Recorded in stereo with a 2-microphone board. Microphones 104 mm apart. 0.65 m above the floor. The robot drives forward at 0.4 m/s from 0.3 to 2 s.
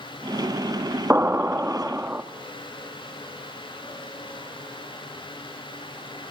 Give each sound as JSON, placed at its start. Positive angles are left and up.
{"t": 1.1, "sound": "an explosion", "side_deg": -20, "distance_m": 1.0}